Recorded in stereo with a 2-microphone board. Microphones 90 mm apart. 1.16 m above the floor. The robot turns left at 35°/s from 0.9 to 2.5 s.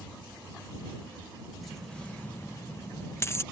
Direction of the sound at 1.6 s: Centre (ahead or behind).